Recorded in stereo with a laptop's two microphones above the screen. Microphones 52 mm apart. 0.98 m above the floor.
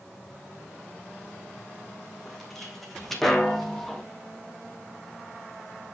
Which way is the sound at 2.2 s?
5° left (ahead or behind).